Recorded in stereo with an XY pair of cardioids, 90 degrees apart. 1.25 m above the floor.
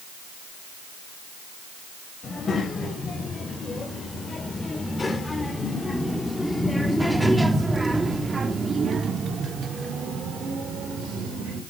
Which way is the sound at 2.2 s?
50° left.